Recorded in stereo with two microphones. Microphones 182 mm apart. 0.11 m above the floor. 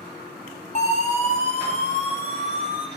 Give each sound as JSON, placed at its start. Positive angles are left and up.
{"t": 0.8, "sound": "a siren", "side_deg": 40, "distance_m": 9.0}